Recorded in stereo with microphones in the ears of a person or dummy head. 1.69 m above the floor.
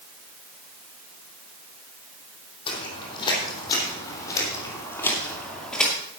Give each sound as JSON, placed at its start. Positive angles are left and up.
{"t": 2.7, "sound": "footsteps", "side_deg": 30, "distance_m": 4.0}